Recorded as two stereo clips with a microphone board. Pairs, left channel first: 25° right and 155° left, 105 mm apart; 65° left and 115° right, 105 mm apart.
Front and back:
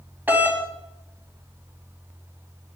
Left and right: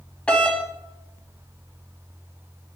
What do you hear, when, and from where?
0.3 s a doorbell: 130° left, 1.6 m